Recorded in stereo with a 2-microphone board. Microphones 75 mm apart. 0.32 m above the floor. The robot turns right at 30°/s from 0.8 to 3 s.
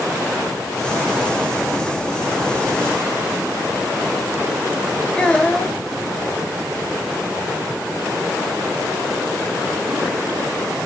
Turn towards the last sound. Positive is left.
turn(degrees=15)  # may be behind; listen again after turning